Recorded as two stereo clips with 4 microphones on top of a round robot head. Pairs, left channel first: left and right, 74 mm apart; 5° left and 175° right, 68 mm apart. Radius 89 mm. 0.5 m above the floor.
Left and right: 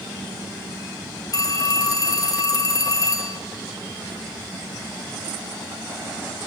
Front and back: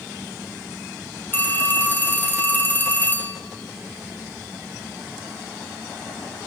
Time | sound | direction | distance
1.3 | a phone ringing | 60° left | 1.9 m